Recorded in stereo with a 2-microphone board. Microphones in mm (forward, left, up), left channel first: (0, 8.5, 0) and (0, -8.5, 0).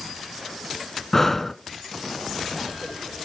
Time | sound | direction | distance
1.1 | breathing | 15° left (ahead or behind) | 0.6 m